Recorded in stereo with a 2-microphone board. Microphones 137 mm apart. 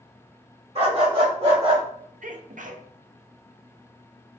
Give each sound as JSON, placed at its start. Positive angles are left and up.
{"t": 0.8, "sound": "a dog barking", "side_deg": -50, "distance_m": 1.6}
{"t": 2.2, "sound": "a sneeze", "side_deg": -70, "distance_m": 0.6}